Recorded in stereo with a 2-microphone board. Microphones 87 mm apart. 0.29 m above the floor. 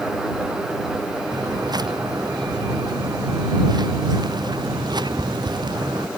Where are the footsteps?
55° right (ahead or behind).